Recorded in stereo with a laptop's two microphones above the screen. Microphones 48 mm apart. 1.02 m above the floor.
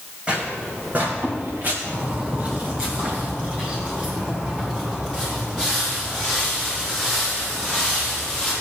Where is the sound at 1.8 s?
25° right (ahead or behind), 3.5 m; by 8.5 s 15° left (ahead or behind), 9 m.